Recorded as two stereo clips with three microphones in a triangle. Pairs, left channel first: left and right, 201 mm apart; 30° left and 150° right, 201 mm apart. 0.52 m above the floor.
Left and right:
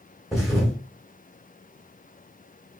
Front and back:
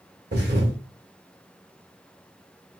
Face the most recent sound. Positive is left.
turn(degrees=180)